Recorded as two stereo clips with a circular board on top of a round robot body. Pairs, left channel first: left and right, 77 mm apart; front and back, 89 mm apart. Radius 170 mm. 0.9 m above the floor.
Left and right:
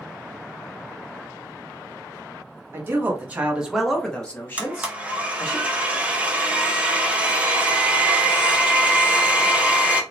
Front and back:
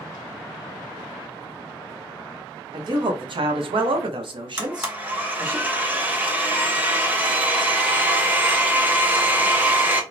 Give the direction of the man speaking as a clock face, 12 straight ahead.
5 o'clock.